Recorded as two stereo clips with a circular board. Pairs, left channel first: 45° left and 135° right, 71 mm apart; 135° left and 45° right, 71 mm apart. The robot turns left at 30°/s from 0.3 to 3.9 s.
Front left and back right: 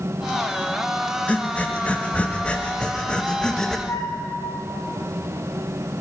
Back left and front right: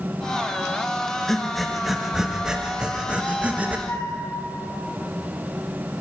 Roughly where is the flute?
Left.